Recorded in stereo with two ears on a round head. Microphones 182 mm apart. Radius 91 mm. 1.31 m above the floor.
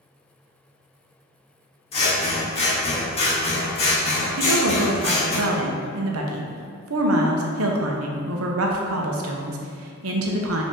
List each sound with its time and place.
1.9 s scissors: 30° left (ahead or behind), 1.2 m
4.4 s a woman speaking: 75° right (ahead or behind), 0.7 m